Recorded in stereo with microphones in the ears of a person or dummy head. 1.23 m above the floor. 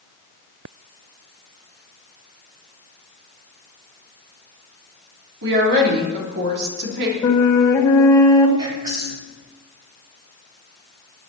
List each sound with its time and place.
5.4 s a woman speaking: 60° right (ahead or behind), 3.5 m
7.2 s a flute: 20° left (ahead or behind), 1.6 m
8.6 s whispering: 20° right (ahead or behind), 4 m